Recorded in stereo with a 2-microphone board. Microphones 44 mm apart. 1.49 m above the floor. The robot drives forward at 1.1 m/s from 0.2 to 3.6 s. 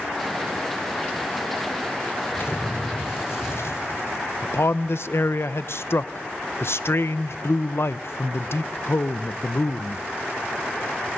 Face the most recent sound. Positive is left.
turn(degrees=70)  # may be behind; listen again after turning